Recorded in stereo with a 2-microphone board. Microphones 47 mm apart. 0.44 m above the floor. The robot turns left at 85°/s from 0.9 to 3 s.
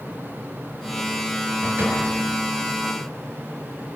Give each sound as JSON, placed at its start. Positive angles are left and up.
{"t": 1.6, "sound": "a door slam", "azimuth_deg": -120, "distance_m": 7.0}